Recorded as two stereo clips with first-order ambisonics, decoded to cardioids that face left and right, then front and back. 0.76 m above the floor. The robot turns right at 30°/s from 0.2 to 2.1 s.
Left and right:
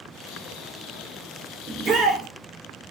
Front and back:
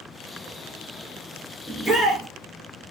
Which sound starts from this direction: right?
A shout, at 1.7 s.